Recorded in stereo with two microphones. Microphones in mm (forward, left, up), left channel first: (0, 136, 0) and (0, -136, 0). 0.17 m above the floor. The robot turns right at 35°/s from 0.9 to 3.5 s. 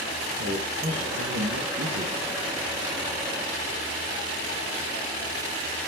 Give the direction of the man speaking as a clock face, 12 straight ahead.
4 o'clock.